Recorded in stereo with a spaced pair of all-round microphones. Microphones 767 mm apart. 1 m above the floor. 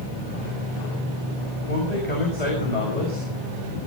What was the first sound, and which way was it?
A man speaking, 55° left (ahead or behind).